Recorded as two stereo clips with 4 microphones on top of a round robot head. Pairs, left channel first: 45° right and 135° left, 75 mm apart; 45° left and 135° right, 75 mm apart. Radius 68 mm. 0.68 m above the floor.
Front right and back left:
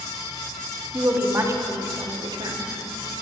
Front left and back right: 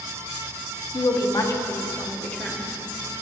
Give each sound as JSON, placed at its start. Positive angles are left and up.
{"t": 0.9, "sound": "a woman speaking", "azimuth_deg": 65, "distance_m": 1.0}